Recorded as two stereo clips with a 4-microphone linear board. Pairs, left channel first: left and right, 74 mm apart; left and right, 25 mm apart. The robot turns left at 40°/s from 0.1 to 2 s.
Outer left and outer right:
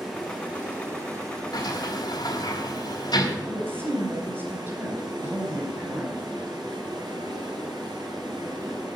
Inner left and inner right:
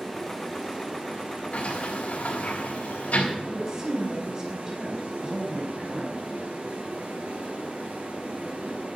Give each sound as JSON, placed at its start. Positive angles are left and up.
{"t": 0.0, "sound": "running water", "azimuth_deg": -5, "distance_m": 6.5}
{"t": 1.5, "sound": "a sliding door", "side_deg": 75, "distance_m": 4.0}
{"t": 3.4, "sound": "a woman speaking", "side_deg": -30, "distance_m": 4.5}